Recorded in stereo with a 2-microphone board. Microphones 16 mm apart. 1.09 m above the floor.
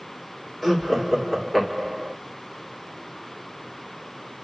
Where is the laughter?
15° left (ahead or behind), 2.5 m.